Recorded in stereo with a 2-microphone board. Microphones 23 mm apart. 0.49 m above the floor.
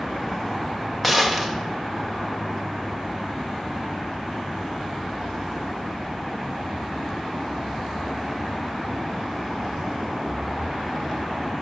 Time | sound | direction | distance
1.0 | a gunshot | 10° left (ahead or behind) | 2.5 m